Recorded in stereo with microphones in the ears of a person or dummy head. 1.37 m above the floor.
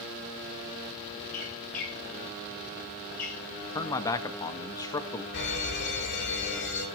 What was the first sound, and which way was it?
A squeak, 45° left (ahead or behind).